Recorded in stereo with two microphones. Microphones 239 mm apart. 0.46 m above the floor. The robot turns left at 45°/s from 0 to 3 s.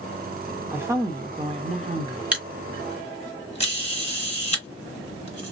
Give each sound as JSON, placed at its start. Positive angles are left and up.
{"t": 0.7, "sound": "a woman speaking", "side_deg": -10, "distance_m": 0.9}
{"t": 2.3, "sound": "a camera shutter", "side_deg": -5, "distance_m": 1.4}